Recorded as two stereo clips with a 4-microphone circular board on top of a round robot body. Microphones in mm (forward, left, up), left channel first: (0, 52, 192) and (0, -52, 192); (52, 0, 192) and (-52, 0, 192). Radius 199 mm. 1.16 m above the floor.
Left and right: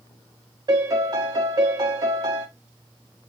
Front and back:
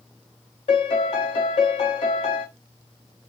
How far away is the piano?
About 0.6 m.